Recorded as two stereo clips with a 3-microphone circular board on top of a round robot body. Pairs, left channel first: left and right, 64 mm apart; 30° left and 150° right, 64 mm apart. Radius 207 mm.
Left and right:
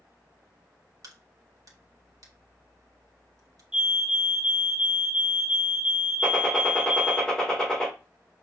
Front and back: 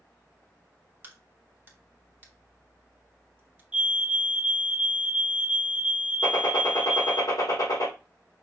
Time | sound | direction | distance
1.0 | a crack | 95° right | 1.6 m
3.7 | a fire alarm | 120° right | 1.5 m
6.2 | a gunshot | 10° left | 2.5 m